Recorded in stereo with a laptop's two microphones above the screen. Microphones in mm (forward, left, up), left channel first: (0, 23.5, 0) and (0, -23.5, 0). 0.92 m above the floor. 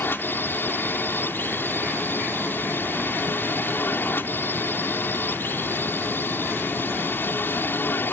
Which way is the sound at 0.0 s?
50° left (ahead or behind).